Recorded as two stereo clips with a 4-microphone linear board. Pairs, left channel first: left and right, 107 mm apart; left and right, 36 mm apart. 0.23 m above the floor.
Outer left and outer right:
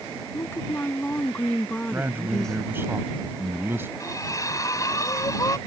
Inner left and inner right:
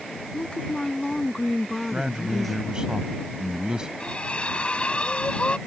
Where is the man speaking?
20° right (ahead or behind).